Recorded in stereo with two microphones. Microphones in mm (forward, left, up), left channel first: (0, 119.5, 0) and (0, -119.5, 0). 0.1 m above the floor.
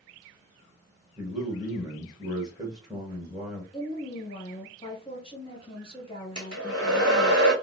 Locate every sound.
1.2 s a man speaking: 15° right (ahead or behind), 1.7 m
3.7 s a woman speaking: 20° left (ahead or behind), 1.9 m
6.3 s a hair dryer: 75° right (ahead or behind), 1.7 m